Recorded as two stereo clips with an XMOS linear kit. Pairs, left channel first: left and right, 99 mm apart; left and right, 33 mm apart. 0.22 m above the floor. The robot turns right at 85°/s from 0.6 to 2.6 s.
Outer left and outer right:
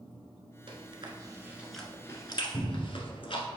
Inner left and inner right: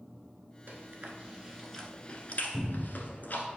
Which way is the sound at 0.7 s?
75° right (ahead or behind).